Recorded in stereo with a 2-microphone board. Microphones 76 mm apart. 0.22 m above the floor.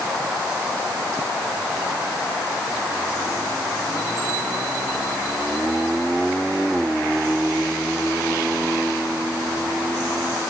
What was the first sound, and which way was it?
Only background noise.